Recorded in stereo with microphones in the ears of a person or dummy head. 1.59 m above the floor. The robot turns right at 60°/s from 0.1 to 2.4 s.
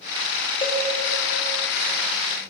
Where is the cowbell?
20° left (ahead or behind), 0.7 m; by 0.9 s 10° left (ahead or behind), 0.7 m.